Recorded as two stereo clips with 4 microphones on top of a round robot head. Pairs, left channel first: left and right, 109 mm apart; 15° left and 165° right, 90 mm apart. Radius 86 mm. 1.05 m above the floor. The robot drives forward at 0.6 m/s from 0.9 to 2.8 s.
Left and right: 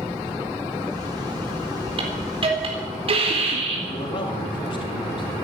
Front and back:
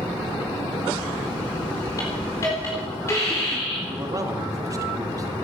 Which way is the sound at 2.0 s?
50° right.